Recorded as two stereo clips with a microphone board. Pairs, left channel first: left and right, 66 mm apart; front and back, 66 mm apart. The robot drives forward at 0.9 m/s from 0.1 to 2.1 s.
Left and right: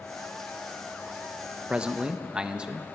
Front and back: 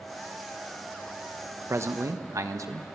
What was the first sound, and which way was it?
A man speaking, 155° right.